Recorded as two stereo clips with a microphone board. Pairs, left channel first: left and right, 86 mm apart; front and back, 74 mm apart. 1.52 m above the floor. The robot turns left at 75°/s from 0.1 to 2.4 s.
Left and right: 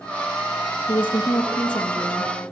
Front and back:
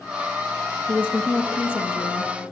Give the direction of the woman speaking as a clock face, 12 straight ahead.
8 o'clock.